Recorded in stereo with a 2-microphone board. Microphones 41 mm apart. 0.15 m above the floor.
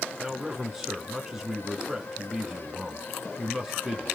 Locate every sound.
0.2 s a man speaking: 10° right (ahead or behind), 1.3 m